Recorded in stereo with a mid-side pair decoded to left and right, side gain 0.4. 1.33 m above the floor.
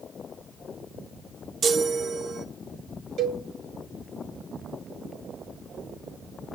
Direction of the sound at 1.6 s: 60° right.